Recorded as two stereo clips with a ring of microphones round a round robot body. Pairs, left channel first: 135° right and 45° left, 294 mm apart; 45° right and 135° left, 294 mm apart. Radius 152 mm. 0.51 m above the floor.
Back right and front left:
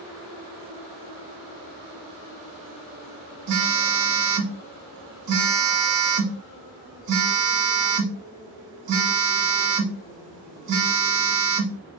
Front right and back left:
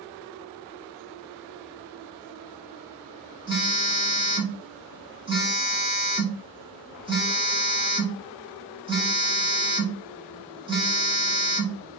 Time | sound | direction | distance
3.5 | a phone buzzing | 60° left | 1.3 m